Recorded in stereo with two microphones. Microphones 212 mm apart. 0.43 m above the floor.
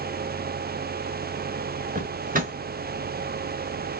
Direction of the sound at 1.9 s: 40° right (ahead or behind).